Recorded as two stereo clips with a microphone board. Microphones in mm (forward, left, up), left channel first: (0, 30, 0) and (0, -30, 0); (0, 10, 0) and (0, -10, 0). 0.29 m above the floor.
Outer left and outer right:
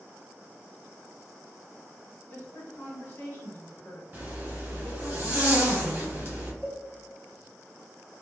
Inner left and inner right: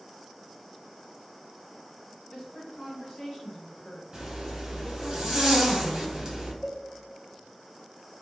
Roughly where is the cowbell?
Right.